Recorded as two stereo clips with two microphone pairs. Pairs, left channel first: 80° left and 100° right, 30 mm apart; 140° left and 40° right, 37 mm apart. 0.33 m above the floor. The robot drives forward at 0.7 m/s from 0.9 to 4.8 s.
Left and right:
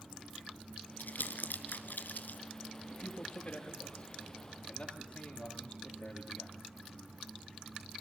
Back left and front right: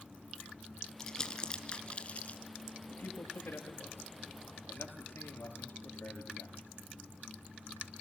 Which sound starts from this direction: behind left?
A man speaking, at 2.9 s.